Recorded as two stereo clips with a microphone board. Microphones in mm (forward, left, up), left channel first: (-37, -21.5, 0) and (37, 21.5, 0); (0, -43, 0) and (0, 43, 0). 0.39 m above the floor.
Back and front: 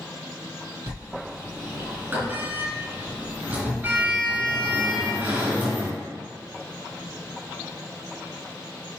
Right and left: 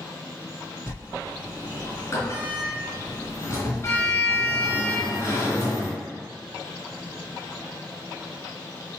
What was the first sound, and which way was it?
A sliding door, 40° right.